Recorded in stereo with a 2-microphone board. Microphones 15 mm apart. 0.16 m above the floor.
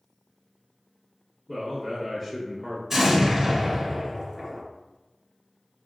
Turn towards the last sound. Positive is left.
turn(degrees=-25)  # may be behind; listen again after turning